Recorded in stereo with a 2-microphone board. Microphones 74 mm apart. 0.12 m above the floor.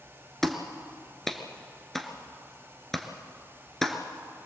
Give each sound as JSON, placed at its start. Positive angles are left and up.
{"t": 0.4, "sound": "a clap", "side_deg": 5, "distance_m": 1.5}